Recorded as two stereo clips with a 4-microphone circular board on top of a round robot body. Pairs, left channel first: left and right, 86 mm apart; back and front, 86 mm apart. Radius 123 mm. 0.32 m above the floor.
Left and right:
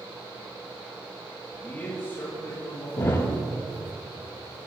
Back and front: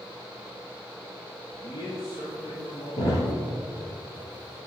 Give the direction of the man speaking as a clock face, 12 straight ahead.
7 o'clock.